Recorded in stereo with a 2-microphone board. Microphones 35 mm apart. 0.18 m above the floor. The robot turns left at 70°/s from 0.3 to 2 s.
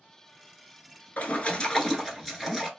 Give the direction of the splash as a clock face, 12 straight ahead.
10 o'clock.